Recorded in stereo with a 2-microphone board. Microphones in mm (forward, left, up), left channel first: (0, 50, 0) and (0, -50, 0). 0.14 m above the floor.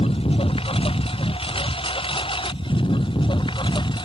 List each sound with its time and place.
0.0 s a lawn mower: 70° left (ahead or behind); by 4.0 s 55° left (ahead or behind)